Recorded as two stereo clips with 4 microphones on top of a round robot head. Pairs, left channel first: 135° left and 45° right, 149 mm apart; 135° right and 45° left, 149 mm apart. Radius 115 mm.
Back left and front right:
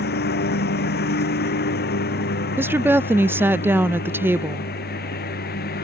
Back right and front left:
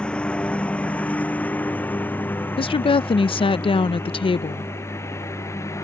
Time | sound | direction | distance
0.0 | a lawn mower | 140° left | ?
2.6 | a woman speaking | 110° right | ?